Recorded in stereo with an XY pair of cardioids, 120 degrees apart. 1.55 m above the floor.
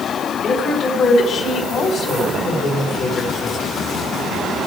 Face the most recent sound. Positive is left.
turn(degrees=45)